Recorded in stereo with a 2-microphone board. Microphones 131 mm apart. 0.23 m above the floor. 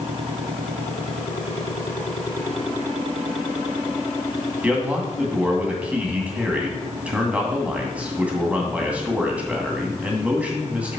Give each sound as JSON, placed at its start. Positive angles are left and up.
{"t": 4.6, "sound": "a man speaking", "side_deg": -10, "distance_m": 2.0}